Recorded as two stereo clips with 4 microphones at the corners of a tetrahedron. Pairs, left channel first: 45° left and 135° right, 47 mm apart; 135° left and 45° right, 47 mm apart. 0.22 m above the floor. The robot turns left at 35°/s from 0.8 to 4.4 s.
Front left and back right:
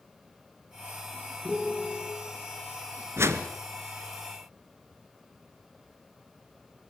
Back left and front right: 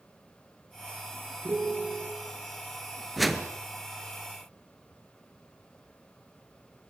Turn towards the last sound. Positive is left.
turn(degrees=-175)